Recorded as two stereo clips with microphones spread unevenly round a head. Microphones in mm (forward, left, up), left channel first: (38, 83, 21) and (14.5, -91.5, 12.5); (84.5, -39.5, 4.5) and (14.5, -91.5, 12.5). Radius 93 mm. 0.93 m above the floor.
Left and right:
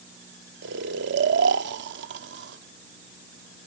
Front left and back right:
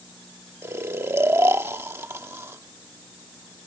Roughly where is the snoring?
Right.